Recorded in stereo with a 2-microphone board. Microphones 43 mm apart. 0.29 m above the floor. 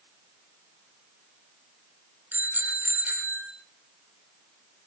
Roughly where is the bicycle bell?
Right.